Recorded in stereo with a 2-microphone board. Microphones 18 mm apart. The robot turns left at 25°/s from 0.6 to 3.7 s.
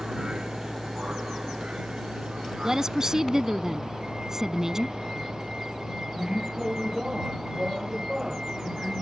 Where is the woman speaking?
30° right (ahead or behind); by 5.0 s 25° right (ahead or behind).